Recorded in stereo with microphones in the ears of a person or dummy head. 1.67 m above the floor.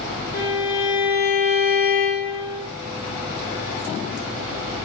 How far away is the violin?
About 1.7 m.